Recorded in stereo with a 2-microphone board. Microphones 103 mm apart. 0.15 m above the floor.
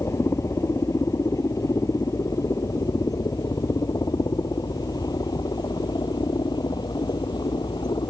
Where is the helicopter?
30° left (ahead or behind); by 8.1 s 45° left (ahead or behind).